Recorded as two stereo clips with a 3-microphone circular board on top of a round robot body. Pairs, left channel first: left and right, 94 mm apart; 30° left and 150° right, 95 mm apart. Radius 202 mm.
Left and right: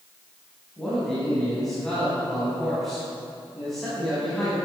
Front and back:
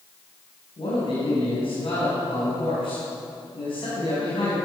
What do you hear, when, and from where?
0.8 s a man speaking: straight ahead, 4.5 m